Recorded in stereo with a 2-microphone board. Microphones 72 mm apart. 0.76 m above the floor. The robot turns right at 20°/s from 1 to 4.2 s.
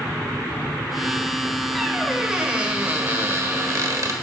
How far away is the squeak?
About 1.2 m.